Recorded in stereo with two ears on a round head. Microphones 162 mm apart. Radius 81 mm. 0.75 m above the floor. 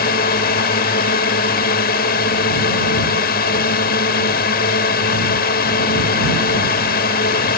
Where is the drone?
55° left (ahead or behind).